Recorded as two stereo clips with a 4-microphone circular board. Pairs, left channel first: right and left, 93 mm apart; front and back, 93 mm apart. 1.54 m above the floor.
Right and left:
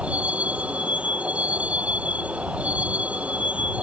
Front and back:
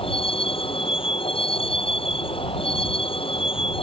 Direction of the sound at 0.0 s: 15° left.